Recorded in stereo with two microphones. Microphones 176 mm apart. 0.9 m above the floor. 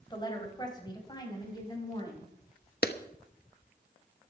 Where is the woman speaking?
25° left (ahead or behind), 4 m.